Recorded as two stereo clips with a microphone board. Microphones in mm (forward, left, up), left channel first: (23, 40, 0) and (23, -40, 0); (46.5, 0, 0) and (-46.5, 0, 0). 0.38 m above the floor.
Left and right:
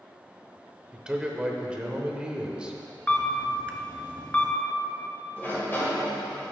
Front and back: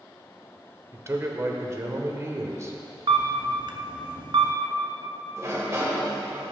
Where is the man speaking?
155° right, 0.9 m.